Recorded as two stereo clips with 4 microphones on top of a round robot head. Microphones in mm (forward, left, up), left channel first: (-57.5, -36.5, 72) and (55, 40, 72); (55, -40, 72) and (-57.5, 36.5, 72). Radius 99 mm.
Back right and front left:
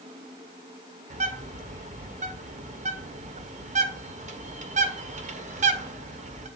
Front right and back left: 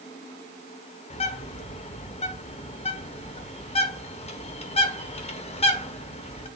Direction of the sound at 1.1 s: 5° left.